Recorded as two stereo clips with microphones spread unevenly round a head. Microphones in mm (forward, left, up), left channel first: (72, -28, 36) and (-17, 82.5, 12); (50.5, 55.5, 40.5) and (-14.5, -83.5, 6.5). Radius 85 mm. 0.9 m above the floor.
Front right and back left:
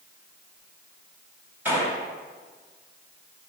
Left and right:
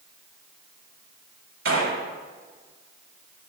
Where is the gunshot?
150° right, 3 m.